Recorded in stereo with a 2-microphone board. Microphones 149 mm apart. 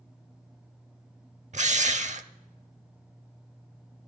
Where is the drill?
55° right (ahead or behind), 0.6 m.